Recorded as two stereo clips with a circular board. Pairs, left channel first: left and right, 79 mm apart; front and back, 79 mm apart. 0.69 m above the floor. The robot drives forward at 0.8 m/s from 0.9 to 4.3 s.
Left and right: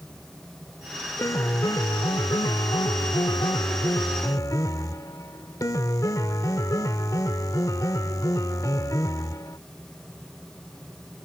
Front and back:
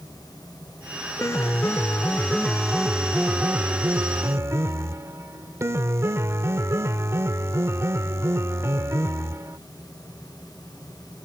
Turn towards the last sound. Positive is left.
turn(degrees=130)